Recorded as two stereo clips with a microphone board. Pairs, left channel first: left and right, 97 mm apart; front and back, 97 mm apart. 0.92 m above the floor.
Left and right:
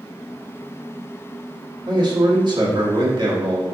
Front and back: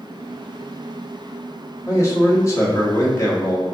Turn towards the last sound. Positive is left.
turn(degrees=-55)